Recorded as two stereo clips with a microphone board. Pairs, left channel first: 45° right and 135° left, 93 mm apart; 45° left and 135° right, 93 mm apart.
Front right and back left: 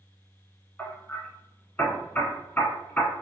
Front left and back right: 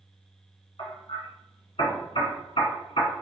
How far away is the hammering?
About 1.3 m.